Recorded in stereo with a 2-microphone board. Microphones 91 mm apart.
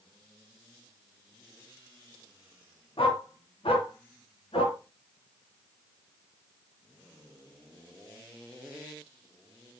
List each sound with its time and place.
3.0 s a dog barking: 75° left (ahead or behind), 2.5 m; by 4.8 s 80° left, 3.5 m